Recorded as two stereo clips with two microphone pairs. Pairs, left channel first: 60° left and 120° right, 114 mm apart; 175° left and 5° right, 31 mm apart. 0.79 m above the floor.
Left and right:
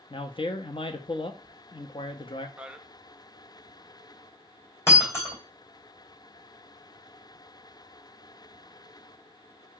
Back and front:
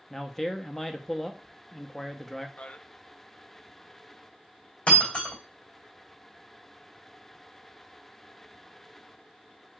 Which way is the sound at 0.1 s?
90° left.